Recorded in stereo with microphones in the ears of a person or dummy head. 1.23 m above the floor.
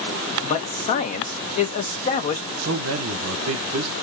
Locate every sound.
0.4 s a man speaking: 35° left (ahead or behind), 0.8 m
2.6 s a man speaking: 80° right, 0.7 m